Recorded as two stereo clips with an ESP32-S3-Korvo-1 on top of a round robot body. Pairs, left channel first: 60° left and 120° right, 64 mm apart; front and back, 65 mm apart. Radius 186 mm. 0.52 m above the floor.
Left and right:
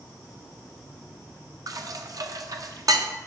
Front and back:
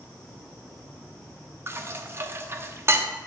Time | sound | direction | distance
1.7 | dishes clattering | 130° right | 0.8 m